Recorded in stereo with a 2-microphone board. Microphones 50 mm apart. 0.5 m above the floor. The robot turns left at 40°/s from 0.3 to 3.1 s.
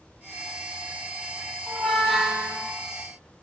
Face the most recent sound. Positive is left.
turn(degrees=-35)